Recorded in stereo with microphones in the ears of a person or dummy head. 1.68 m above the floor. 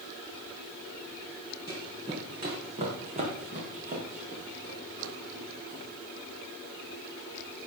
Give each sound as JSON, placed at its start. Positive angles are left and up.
{"t": 1.7, "sound": "running footsteps", "side_deg": -20, "distance_m": 4.5}